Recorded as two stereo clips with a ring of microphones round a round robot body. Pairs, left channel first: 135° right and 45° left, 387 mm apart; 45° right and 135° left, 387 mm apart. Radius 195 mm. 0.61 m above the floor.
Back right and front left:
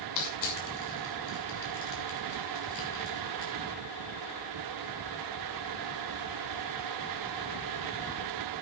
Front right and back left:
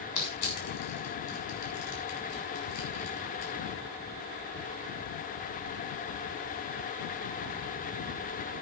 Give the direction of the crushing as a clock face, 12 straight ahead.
3 o'clock.